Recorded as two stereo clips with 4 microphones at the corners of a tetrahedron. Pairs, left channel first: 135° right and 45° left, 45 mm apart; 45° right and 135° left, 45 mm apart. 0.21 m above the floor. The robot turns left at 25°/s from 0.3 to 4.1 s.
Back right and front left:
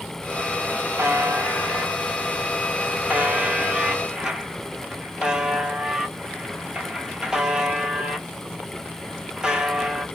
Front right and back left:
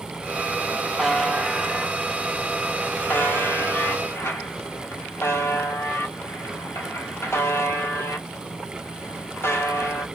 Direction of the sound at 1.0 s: 50° left.